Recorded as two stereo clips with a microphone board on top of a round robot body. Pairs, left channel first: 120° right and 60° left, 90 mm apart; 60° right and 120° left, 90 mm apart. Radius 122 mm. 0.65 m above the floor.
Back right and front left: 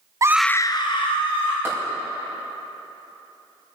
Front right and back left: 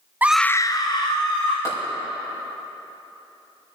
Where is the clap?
5° right, 5 m.